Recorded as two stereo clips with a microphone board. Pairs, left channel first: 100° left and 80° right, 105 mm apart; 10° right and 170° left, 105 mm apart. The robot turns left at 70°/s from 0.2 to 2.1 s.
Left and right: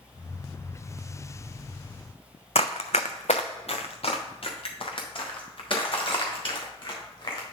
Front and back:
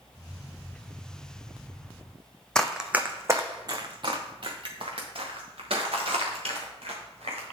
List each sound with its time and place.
2.5 s running footsteps: 70° left, 0.6 m; by 7.5 s 145° left, 3.5 m